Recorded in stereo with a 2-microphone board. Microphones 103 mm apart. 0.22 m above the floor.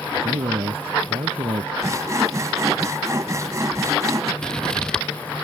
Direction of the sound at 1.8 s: 30° right (ahead or behind).